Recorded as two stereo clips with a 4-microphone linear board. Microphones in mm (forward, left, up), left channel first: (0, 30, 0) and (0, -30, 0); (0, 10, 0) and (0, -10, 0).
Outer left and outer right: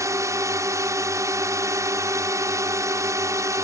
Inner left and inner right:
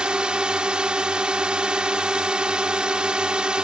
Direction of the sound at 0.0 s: 55° right (ahead or behind).